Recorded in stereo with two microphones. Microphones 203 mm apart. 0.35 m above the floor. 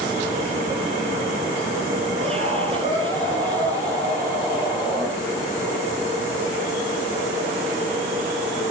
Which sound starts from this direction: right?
A scream, at 2.2 s.